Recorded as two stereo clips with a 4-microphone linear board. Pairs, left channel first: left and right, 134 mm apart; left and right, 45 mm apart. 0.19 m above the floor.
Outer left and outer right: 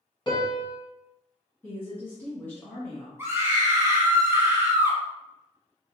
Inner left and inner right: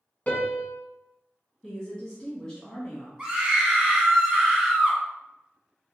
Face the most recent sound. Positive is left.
turn(degrees=-20)  # may be behind; listen again after turning